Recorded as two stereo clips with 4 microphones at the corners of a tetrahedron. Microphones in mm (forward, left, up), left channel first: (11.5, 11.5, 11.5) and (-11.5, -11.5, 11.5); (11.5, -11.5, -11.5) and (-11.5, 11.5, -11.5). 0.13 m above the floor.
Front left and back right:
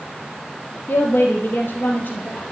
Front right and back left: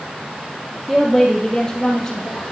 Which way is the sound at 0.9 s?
50° left.